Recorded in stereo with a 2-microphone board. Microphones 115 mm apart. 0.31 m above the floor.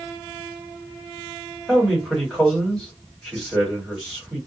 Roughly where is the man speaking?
Centre.